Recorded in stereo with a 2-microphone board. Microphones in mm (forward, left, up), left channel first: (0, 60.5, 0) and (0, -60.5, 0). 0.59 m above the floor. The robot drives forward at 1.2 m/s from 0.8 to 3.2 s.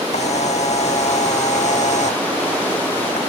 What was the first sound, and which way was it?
A camera shutter, 65° left (ahead or behind).